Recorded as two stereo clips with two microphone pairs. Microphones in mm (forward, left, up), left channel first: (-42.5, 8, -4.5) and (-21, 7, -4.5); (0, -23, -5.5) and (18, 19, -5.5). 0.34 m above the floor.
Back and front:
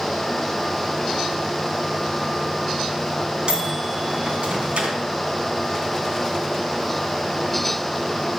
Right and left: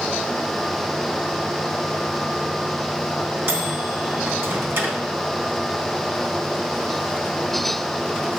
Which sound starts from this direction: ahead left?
A microwave, at 3.5 s.